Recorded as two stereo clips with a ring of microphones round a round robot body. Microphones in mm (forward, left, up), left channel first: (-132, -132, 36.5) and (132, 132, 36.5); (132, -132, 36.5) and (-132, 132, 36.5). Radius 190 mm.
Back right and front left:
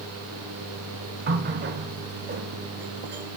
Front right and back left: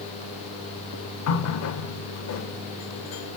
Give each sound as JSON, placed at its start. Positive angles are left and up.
{"t": 1.3, "sound": "a running tap", "azimuth_deg": -10, "distance_m": 0.8}